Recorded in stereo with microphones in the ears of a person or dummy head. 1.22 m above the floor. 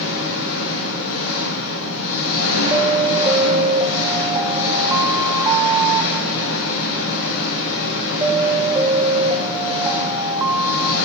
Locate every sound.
0.0 s an engine running: 80° left, 5.5 m
2.7 s an alarm: 15° right (ahead or behind), 1.0 m